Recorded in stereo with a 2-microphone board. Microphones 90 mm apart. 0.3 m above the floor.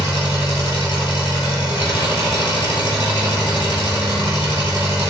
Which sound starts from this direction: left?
An engine running, at 0.0 s.